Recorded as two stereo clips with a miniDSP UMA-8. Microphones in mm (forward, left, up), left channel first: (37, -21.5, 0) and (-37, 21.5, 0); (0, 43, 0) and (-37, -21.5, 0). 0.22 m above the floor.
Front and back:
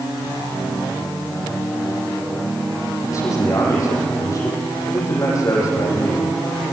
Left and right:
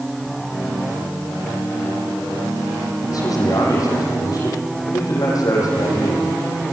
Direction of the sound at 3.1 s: 25° left.